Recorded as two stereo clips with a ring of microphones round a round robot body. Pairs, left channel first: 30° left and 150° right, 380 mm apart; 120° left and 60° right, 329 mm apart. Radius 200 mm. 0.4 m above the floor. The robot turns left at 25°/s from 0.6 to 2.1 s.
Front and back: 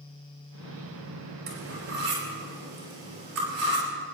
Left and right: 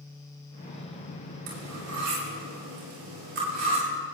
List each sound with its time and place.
1.5 s cutlery clinking: 95° right, 5.5 m; by 3.9 s 110° right, 5.5 m